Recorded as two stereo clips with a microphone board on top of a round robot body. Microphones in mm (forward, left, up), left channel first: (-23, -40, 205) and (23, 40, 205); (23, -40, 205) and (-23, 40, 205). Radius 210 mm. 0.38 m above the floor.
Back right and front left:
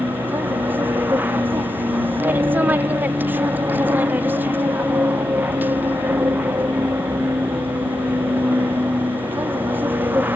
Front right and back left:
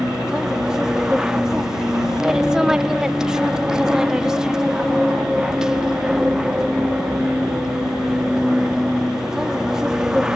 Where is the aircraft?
50° left.